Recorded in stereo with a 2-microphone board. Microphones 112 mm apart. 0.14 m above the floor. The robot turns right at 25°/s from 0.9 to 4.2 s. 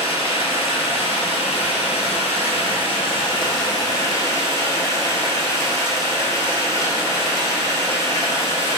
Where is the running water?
65° left, 0.8 m; by 8.8 s 150° left, 0.8 m.